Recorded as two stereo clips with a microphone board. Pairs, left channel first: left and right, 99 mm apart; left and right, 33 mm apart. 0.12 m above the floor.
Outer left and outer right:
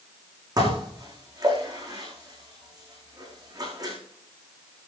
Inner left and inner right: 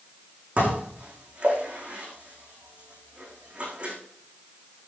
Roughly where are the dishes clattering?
Right.